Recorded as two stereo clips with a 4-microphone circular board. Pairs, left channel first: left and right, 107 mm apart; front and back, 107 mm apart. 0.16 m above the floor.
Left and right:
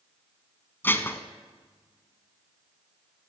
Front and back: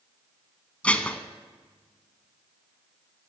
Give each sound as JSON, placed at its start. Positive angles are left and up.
{"t": 0.8, "sound": "dishes clattering", "azimuth_deg": 60, "distance_m": 0.9}